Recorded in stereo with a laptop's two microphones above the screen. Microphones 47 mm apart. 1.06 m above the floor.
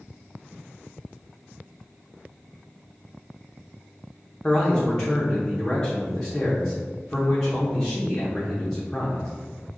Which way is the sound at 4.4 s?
10° left (ahead or behind).